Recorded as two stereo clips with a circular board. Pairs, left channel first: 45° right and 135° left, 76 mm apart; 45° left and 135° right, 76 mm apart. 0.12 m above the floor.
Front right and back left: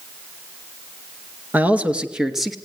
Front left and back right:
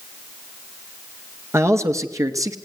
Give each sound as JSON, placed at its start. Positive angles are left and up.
{"t": 1.5, "sound": "a man speaking", "azimuth_deg": -165, "distance_m": 2.0}